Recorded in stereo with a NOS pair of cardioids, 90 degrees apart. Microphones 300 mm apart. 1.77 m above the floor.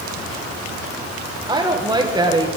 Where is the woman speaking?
15° right, 1.5 m.